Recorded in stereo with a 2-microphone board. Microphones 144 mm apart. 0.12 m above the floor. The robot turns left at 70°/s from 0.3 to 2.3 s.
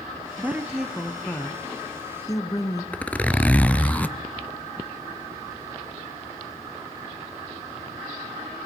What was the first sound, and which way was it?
A woman speaking, 15° right (ahead or behind).